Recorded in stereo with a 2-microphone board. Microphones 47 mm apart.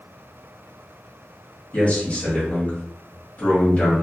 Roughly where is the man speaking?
Left.